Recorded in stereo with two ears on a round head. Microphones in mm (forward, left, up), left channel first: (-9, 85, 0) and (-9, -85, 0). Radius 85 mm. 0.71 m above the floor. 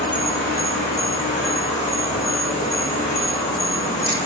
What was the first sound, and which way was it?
An insect, 40° left (ahead or behind).